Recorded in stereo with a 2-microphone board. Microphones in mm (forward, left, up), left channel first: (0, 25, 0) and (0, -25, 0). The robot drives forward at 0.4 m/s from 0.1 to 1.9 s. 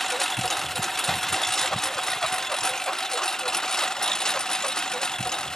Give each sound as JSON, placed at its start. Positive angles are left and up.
{"t": 0.0, "sound": "a lawn mower", "side_deg": 5}